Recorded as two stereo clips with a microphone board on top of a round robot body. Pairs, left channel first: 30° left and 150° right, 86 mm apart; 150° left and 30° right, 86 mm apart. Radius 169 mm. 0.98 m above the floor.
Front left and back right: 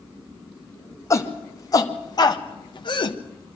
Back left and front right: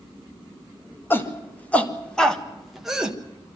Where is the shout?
85° left, 2 m; by 3.2 s 50° left, 1.7 m.